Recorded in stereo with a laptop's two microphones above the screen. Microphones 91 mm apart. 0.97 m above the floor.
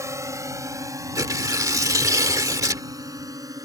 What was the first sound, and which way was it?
A drone, 35° right (ahead or behind).